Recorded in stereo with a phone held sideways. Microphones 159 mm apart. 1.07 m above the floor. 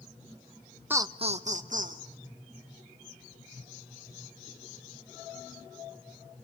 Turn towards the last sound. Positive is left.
turn(degrees=-65)  # may be behind; listen again after turning